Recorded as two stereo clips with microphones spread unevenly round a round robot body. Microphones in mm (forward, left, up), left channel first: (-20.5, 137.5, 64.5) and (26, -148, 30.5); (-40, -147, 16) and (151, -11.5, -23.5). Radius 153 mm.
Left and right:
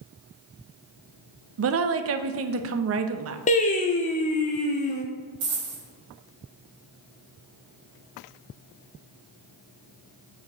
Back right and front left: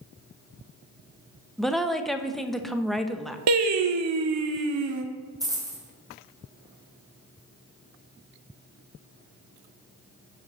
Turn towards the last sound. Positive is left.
turn(degrees=-40)